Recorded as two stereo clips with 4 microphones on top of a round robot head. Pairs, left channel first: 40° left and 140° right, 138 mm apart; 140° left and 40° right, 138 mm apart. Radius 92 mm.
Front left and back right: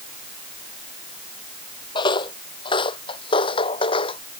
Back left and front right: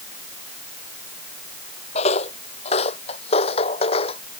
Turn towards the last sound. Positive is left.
turn(degrees=90)